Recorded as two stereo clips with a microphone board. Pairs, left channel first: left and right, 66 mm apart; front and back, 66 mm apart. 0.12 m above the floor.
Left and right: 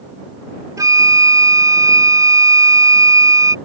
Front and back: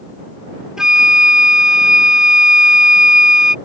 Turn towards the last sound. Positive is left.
turn(degrees=-100)